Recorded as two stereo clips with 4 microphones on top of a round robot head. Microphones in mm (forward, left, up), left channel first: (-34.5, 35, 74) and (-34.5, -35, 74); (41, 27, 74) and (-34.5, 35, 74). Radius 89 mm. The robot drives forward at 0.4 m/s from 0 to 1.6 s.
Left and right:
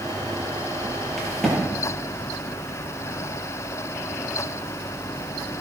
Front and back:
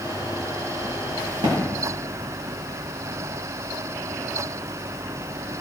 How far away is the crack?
About 9 m.